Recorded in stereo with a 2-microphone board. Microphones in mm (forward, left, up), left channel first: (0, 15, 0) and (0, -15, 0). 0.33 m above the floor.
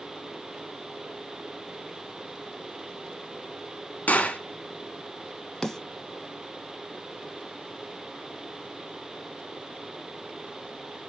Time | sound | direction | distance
4.1 | a gunshot | 70° left (ahead or behind) | 0.8 m
5.6 | a snare drum | 15° left (ahead or behind) | 0.7 m